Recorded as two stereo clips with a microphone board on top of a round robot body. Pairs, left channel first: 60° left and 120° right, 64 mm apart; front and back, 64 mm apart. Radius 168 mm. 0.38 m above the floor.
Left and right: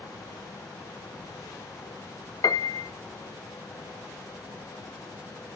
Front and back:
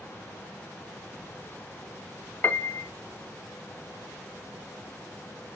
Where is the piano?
60° left, 0.5 m.